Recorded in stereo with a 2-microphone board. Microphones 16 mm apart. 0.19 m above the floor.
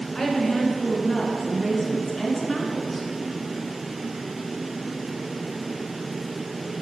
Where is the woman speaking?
30° left (ahead or behind), 2.0 m.